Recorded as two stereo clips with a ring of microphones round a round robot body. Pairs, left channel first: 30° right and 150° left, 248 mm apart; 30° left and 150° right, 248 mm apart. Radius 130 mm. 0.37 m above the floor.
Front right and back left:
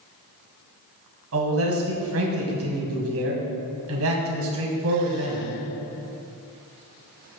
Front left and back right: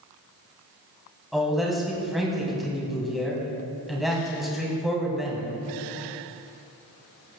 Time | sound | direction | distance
1.3 | a man speaking | 120° left | 3 m